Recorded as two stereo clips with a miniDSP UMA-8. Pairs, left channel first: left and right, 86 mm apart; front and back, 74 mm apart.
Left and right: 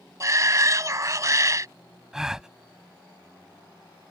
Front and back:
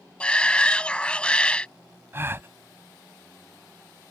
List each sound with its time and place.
0.2 s a shout: 70° right
2.1 s a gasp: 170° right